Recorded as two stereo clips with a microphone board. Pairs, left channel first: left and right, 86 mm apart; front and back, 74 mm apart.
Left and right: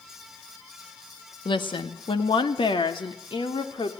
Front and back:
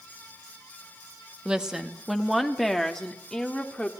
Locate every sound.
1.4 s a woman speaking: 100° left, 1.7 m; by 3.9 s 80° left, 3.5 m